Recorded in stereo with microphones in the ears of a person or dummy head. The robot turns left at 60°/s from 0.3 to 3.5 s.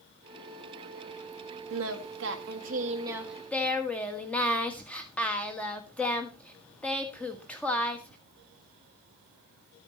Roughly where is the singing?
Right.